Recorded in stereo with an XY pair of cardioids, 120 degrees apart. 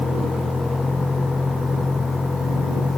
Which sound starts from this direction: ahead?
A vehicle, at 0.0 s.